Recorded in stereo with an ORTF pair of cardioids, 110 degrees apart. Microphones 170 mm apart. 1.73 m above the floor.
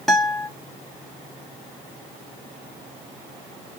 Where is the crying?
No crying in this recording.